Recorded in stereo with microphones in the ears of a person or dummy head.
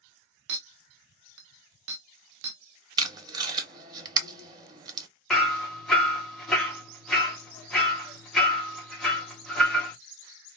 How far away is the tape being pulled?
About 0.8 m.